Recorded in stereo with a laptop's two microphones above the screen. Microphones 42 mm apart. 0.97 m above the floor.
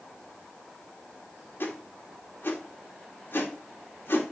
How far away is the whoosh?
About 1.7 m.